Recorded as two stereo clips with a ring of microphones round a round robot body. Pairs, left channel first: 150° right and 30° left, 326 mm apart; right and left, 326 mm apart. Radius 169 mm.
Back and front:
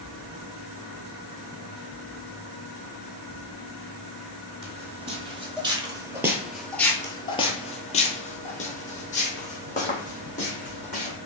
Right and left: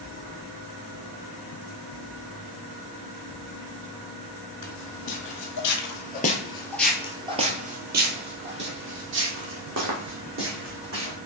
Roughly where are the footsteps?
Ahead right.